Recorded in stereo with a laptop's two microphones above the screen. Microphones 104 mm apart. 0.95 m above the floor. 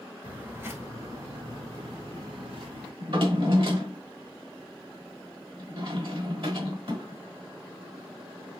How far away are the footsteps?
About 0.9 m.